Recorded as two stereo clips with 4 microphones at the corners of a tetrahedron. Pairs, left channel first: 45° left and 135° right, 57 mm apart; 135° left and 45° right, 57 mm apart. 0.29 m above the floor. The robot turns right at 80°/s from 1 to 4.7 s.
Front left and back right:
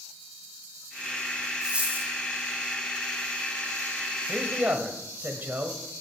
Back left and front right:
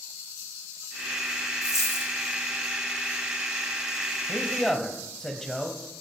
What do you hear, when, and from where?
1.6 s a dropped coin: 145° left, 2.5 m; by 2.1 s 175° right, 2.5 m
4.3 s a man speaking: 175° left, 1.3 m; by 5.8 s 150° right, 1.3 m